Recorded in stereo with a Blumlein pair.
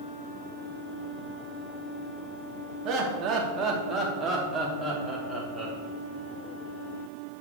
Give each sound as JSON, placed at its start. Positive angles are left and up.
{"t": 2.9, "sound": "laughter", "azimuth_deg": -35, "distance_m": 2.5}